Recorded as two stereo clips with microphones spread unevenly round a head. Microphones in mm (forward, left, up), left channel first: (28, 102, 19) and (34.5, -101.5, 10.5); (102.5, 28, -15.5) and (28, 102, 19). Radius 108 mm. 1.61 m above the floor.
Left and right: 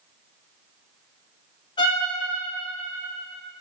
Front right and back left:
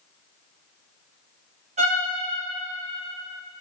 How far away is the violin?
About 2.5 m.